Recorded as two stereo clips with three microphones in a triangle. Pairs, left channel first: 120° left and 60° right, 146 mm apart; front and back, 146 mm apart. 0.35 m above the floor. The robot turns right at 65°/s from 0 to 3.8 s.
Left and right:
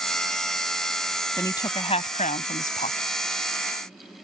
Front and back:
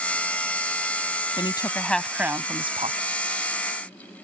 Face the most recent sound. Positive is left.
turn(degrees=-155)